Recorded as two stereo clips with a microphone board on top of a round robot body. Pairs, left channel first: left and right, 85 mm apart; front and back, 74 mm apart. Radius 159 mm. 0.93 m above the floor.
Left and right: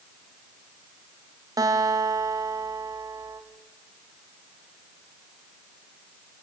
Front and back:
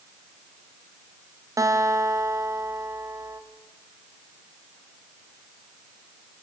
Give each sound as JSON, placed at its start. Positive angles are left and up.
{"t": 1.6, "sound": "a guitar", "azimuth_deg": -135, "distance_m": 2.5}